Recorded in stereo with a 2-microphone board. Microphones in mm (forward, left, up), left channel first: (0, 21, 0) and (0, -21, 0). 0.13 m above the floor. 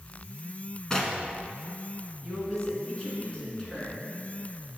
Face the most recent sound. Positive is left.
turn(degrees=15)  # may be behind; listen again after turning